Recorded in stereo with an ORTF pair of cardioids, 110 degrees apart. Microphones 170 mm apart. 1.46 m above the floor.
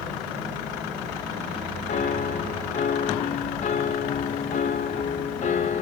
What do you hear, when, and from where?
1.9 s a piano: 45° left, 1.7 m